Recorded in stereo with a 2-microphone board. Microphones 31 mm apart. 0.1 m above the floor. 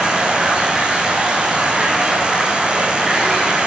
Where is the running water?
20° right (ahead or behind), 6 m.